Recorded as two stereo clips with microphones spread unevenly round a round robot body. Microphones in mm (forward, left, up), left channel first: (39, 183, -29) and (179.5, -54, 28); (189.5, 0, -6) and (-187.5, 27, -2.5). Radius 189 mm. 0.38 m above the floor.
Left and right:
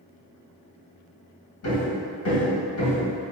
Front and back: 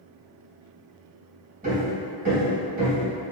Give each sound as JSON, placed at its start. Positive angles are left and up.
{"t": 1.6, "sound": "hammering", "azimuth_deg": 110, "distance_m": 1.8}